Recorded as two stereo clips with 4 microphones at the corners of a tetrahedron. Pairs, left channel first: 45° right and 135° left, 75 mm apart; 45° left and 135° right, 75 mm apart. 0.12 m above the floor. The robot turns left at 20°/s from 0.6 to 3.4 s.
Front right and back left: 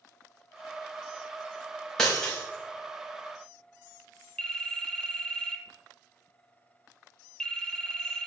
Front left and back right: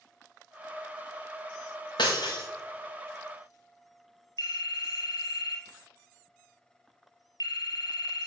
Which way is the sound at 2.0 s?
35° left.